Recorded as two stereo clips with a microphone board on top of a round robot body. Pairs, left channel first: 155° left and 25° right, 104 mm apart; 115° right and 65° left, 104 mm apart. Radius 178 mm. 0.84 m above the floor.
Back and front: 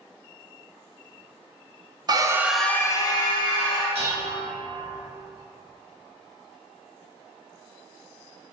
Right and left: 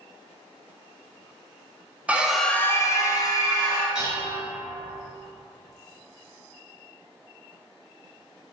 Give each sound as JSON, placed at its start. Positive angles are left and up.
{"t": 2.1, "sound": "a scream", "azimuth_deg": -5, "distance_m": 0.5}
{"t": 4.0, "sound": "dishes clattering", "azimuth_deg": -15, "distance_m": 1.0}